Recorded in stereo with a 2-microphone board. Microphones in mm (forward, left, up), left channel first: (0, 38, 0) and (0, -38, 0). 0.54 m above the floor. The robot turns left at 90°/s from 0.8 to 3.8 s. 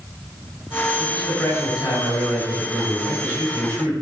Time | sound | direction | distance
1.0 | a man speaking | 175° right | 5.5 m